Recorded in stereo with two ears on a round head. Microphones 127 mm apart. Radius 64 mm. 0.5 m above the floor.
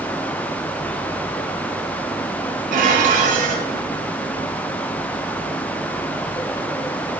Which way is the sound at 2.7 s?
65° right (ahead or behind).